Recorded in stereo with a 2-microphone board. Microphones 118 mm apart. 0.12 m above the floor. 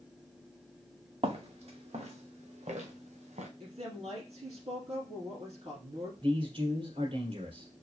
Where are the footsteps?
55° right (ahead or behind), 2.0 m; by 3.5 s 85° right, 1.7 m.